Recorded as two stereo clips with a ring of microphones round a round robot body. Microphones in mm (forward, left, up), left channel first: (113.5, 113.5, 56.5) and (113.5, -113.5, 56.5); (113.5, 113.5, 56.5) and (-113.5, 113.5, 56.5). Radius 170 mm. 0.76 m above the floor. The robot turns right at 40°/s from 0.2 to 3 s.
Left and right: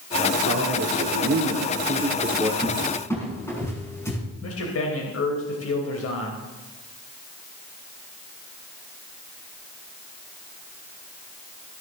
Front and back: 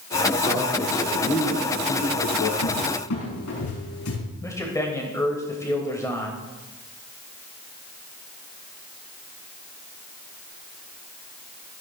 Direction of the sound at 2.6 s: 5° right.